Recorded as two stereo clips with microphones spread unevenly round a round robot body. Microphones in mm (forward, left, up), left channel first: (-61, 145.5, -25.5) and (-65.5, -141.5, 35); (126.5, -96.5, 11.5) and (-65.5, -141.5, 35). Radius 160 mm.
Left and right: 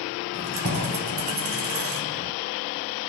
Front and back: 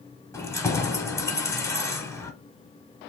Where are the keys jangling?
50° right, 0.9 m.